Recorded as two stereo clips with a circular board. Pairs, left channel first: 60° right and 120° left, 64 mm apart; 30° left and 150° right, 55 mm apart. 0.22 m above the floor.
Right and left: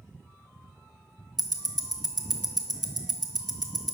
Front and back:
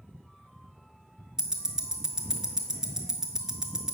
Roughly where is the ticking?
Right.